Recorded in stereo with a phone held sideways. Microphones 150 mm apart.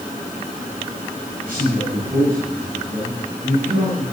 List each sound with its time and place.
1.4 s a man speaking: 70° right (ahead or behind), 8.5 m